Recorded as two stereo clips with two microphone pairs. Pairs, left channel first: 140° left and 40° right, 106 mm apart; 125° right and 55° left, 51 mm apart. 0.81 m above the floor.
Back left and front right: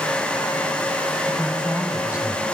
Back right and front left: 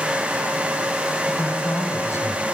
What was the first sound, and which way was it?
A man speaking, 115° right.